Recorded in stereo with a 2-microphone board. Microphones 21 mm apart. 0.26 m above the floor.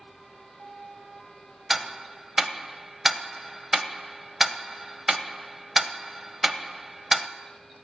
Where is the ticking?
10° right (ahead or behind), 0.8 m.